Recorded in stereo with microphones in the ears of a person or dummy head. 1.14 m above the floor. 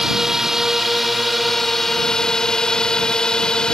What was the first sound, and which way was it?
A drone, centre (ahead or behind).